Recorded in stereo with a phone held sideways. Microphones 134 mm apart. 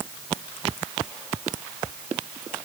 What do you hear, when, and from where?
Only background noise.